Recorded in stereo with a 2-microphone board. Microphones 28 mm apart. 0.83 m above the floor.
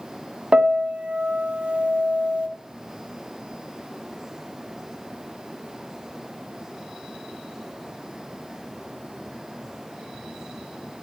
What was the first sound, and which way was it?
A piano, 45° right (ahead or behind).